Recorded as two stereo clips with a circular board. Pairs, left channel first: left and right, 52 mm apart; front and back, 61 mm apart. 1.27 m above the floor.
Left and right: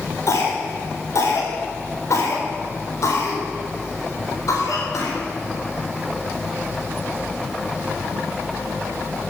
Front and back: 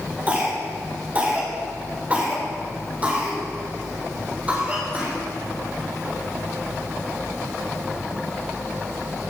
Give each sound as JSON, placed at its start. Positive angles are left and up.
{"t": 0.3, "sound": "a cough", "azimuth_deg": 115, "distance_m": 4.0}